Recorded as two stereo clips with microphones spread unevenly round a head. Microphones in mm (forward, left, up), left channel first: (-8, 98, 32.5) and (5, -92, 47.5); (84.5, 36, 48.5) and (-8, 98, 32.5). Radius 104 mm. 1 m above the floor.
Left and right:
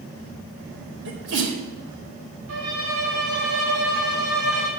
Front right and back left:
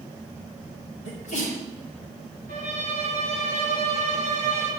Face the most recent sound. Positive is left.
turn(degrees=-70)